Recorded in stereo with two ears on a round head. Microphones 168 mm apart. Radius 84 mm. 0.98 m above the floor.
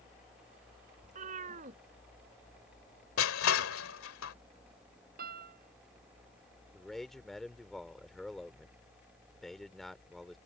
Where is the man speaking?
Centre (ahead or behind).